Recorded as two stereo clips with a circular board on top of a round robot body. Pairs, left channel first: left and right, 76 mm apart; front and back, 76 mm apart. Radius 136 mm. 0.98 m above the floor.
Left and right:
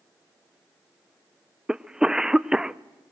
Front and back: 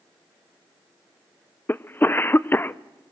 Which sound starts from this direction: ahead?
A cough, at 1.7 s.